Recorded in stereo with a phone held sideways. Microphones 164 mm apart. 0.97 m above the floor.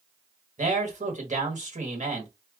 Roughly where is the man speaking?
Right.